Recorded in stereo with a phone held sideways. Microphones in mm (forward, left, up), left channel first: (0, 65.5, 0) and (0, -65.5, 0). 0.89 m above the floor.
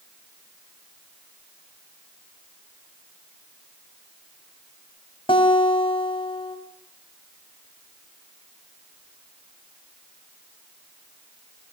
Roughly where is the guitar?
Left.